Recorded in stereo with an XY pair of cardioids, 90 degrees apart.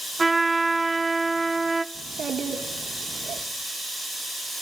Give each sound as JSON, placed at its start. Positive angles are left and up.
{"t": 0.2, "sound": "a trumpet", "azimuth_deg": -20, "distance_m": 0.8}
{"t": 1.9, "sound": "a child speaking", "azimuth_deg": -55, "distance_m": 2.0}